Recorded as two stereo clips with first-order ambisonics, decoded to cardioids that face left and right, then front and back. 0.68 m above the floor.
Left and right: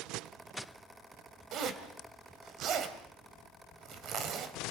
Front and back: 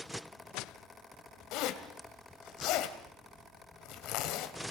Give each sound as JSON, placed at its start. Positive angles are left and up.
{"t": 1.5, "sound": "a zipper", "azimuth_deg": -35, "distance_m": 1.8}